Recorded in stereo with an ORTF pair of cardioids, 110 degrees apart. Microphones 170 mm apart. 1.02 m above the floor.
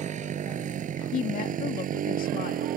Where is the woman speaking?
55° left.